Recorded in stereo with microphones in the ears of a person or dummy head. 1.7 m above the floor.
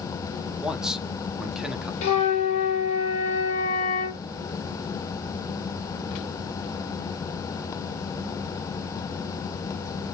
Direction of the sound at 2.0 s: 40° left (ahead or behind).